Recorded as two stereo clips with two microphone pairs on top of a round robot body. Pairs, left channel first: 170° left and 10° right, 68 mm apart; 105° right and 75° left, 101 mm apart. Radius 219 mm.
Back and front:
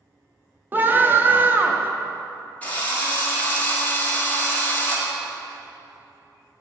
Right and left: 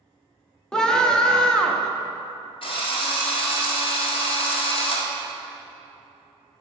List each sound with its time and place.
0.7 s a scream: 55° right, 0.9 m
2.6 s a drill: 125° right, 1.6 m